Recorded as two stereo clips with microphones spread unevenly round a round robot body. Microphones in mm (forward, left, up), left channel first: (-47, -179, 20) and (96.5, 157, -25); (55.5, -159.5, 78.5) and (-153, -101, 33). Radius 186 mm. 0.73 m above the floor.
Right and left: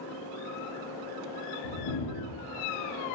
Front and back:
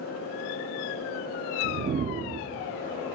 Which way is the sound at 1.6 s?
140° right.